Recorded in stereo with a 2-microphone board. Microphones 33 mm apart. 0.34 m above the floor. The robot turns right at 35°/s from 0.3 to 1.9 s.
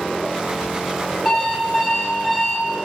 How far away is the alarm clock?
About 3.5 m.